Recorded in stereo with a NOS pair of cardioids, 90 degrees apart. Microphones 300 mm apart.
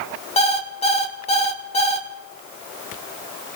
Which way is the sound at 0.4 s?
20° left.